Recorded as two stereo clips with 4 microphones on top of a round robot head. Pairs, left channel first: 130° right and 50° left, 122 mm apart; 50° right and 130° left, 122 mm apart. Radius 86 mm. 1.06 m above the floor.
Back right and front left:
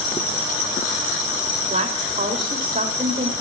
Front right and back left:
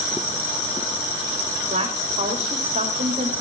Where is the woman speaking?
85° left, 3 m.